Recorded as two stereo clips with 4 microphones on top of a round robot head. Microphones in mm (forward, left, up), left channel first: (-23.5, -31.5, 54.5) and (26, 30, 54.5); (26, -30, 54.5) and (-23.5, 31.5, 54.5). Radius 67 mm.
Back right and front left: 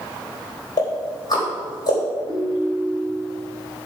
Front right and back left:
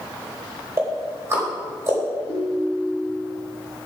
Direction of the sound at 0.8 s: 175° right.